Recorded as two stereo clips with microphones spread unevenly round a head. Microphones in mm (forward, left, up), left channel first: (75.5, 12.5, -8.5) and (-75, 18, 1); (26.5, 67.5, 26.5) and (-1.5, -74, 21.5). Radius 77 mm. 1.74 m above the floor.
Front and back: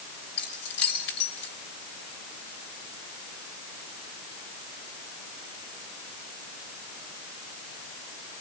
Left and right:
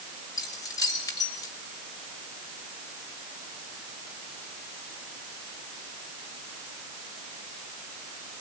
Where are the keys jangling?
15° left, 5.5 m.